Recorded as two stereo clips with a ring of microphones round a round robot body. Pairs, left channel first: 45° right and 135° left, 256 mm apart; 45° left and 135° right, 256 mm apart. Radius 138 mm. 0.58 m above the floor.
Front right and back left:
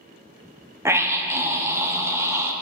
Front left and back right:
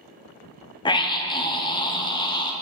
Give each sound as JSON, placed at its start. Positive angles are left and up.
{"t": 0.8, "sound": "a scream", "azimuth_deg": 75, "distance_m": 1.0}